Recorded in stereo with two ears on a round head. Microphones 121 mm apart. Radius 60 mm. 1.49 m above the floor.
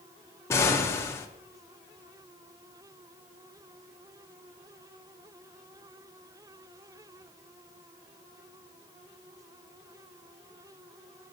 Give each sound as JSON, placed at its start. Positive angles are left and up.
{"t": 0.5, "sound": "an explosion", "side_deg": 20, "distance_m": 0.6}